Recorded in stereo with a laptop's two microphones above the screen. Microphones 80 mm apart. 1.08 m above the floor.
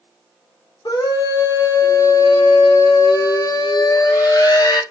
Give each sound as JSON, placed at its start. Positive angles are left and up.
{"t": 0.8, "sound": "a scream", "side_deg": 55, "distance_m": 0.7}